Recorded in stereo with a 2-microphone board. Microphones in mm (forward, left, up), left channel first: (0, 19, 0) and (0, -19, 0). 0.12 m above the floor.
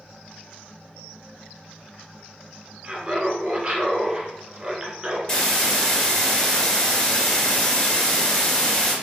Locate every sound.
2.8 s laughter: 25° right (ahead or behind), 1.2 m
5.3 s a hiss: 20° left (ahead or behind), 1.8 m